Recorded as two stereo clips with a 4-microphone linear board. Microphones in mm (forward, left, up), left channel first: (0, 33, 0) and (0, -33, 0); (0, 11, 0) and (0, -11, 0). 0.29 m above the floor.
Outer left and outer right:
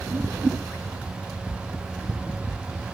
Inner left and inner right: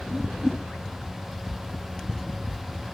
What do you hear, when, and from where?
0.1 s a whoosh: 20° right (ahead or behind), 1.7 m